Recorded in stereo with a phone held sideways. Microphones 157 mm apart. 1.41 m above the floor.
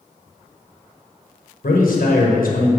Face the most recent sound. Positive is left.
turn(degrees=75)  # may be behind; listen again after turning